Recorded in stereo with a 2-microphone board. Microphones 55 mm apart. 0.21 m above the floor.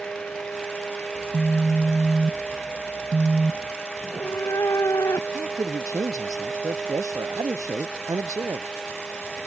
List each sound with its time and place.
1.1 s a phone buzzing: 30° right (ahead or behind)
4.0 s a cat meowing: 90° left
5.3 s a man speaking: 85° right